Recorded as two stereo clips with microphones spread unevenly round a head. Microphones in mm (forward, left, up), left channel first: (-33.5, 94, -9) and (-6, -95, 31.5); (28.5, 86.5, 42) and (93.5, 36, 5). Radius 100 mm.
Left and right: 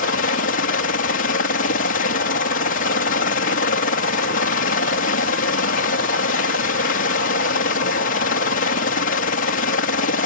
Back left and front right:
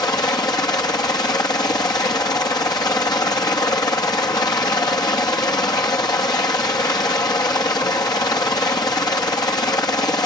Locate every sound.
0.0 s a helicopter: 90° left